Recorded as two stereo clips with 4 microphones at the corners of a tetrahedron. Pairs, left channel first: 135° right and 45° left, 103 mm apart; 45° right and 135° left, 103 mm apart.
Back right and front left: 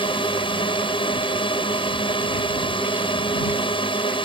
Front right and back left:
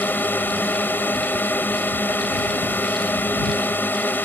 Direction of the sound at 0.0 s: 115° right.